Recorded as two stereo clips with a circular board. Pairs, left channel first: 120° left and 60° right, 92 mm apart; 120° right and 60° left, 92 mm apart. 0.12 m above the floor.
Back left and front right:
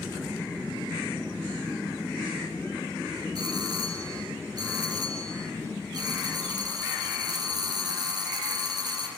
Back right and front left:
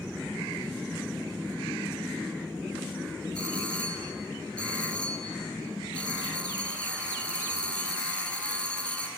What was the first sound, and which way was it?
A doorbell, 45° right.